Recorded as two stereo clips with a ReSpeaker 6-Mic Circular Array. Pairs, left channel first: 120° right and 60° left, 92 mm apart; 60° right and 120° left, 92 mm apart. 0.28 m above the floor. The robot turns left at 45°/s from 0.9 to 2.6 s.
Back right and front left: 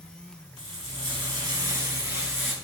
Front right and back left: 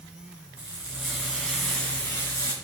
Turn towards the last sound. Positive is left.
turn(degrees=-15)